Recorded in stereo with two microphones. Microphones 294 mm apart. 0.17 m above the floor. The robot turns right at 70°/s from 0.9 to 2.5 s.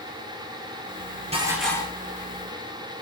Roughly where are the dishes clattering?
Ahead.